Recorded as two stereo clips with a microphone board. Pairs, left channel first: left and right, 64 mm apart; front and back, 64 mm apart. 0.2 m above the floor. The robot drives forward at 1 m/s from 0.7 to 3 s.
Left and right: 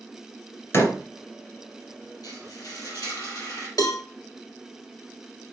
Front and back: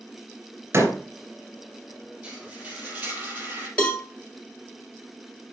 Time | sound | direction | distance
0.7 | a door slam | 135° left | 3 m
2.2 | frying | 105° left | 3 m
3.8 | a cowbell | 70° left | 1.5 m